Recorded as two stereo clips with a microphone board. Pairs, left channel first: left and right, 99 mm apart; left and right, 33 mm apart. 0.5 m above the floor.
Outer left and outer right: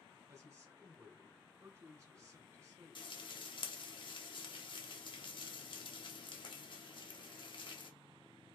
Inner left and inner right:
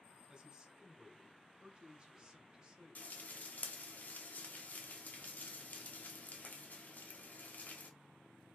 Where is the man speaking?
30° right (ahead or behind), 1.6 m.